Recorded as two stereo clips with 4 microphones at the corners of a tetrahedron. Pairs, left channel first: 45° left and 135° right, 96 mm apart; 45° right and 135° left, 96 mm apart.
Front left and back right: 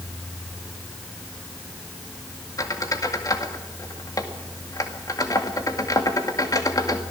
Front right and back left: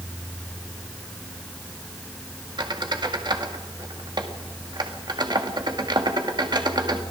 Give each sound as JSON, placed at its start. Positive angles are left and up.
{"t": 2.6, "sound": "a squeak", "azimuth_deg": 95, "distance_m": 2.0}